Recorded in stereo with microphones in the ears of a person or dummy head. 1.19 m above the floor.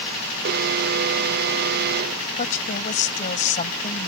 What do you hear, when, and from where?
0.5 s an alarm: 55° right (ahead or behind)
2.4 s a woman speaking: 40° left (ahead or behind)